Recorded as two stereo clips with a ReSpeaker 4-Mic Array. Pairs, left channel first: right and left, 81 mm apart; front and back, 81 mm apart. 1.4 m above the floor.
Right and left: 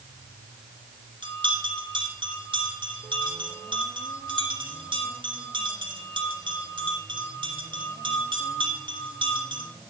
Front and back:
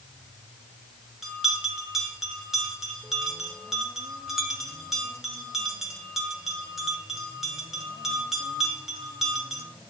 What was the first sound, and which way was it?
A bell, 95° left.